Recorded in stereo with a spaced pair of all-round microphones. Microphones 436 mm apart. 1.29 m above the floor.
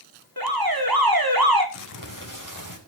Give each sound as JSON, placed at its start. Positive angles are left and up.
{"t": 0.4, "sound": "an alarm", "side_deg": -55, "distance_m": 4.0}
{"t": 1.7, "sound": "crumpling", "side_deg": 45, "distance_m": 4.5}